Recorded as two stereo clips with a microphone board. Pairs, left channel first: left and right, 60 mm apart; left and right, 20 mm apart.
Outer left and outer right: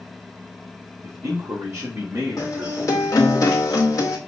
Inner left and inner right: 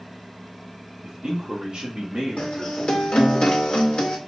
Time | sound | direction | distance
1.0 | a man speaking | 50° right (ahead or behind) | 4 m
2.4 | a guitar | 70° left (ahead or behind) | 2.0 m